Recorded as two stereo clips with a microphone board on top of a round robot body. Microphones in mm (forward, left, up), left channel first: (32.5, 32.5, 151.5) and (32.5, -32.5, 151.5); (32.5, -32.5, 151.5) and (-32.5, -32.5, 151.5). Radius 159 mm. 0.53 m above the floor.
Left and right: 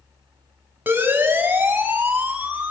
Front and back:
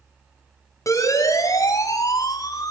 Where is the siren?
30° right, 6 m; by 2.7 s 25° right, 7 m.